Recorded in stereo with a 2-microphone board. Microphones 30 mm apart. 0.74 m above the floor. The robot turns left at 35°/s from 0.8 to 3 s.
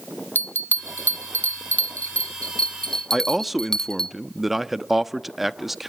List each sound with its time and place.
0.3 s a bell: 70° left (ahead or behind), 0.7 m; by 4.1 s 15° left (ahead or behind), 0.7 m
3.1 s a man speaking: 5° right (ahead or behind), 0.7 m